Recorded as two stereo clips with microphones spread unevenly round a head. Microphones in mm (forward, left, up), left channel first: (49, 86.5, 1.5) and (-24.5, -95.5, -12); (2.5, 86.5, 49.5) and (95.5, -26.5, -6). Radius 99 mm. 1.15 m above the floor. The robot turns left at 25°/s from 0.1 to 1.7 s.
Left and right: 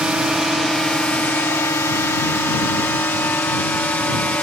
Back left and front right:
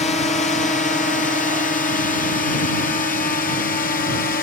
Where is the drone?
165° left; by 4.4 s 150° left.